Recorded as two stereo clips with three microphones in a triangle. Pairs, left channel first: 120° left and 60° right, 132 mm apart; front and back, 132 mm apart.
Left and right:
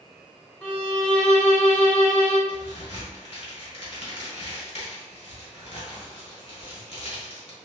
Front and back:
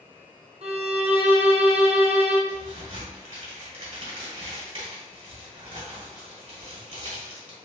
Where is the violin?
160° right, 0.7 m.